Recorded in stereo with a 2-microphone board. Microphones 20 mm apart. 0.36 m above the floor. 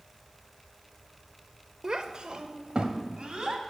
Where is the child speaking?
30° right (ahead or behind), 0.7 m; by 3.6 s 50° right (ahead or behind), 1.8 m.